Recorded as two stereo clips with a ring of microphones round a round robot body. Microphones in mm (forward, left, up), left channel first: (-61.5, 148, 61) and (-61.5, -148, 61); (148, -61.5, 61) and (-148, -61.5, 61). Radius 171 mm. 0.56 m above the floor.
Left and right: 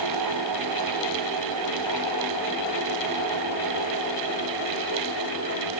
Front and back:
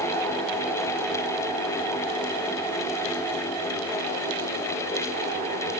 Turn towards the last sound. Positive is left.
No sound to turn to.